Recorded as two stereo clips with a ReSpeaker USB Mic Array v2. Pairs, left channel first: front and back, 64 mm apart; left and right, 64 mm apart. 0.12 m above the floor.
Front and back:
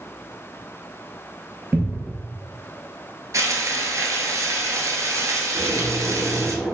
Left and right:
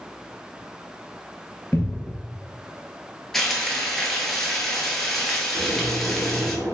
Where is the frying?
Straight behind, 0.8 m.